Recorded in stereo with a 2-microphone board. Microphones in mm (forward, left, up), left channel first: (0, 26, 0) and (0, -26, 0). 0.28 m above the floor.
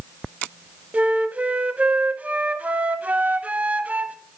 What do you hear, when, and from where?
0.9 s a flute: 30° right (ahead or behind), 0.6 m